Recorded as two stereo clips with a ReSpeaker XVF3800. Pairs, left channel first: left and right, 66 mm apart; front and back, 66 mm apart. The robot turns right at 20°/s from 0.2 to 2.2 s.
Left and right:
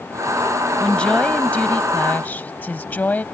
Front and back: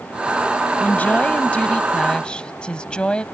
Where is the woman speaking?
30° left; by 3.2 s 55° left.